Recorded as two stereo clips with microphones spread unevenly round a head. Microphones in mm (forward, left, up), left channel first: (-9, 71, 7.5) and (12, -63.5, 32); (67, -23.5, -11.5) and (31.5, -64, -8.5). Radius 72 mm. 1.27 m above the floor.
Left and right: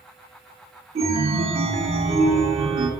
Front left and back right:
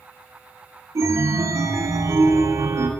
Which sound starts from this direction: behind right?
A chime, at 0.9 s.